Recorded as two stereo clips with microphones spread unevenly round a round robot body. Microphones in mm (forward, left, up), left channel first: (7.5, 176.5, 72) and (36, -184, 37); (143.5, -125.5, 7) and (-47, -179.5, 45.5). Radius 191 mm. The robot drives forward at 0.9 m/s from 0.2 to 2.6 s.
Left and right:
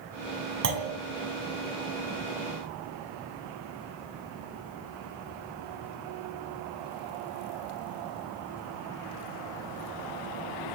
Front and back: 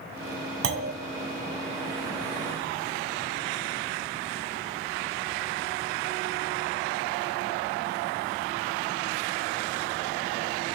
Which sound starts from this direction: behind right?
A clunk, at 0.6 s.